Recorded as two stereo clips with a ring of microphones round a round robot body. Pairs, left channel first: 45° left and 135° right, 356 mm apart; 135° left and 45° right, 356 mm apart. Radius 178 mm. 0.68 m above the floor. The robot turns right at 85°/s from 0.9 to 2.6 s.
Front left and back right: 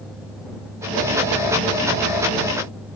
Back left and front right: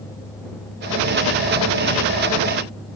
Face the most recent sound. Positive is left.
No sound to turn to.